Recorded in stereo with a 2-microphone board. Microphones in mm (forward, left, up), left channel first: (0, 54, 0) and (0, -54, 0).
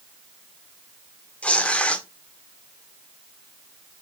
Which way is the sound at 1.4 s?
10° left (ahead or behind).